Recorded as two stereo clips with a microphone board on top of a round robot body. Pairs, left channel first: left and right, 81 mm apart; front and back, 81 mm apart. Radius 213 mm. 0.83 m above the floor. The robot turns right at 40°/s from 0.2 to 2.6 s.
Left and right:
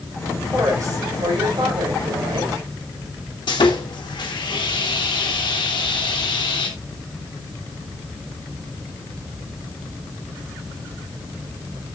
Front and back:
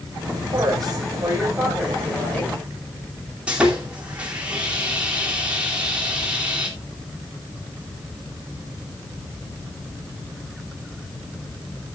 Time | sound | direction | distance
0.5 | a woman speaking | 150° right | 5 m
3.5 | sawing | 105° left | 3 m